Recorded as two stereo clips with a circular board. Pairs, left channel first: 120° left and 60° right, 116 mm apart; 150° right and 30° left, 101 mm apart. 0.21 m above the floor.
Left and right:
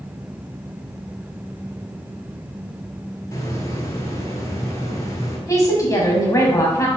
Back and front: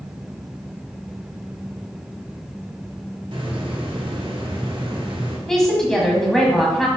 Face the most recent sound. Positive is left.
turn(degrees=130)